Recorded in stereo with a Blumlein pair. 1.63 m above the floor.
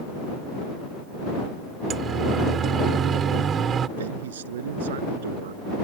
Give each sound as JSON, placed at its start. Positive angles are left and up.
{"t": 1.9, "sound": "a siren", "azimuth_deg": -25}
{"t": 4.0, "sound": "a man speaking", "azimuth_deg": -60}